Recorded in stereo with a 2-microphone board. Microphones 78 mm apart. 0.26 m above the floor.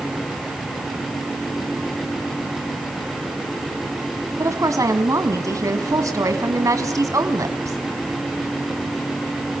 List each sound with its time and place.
4.4 s a woman speaking: 45° right (ahead or behind), 1.7 m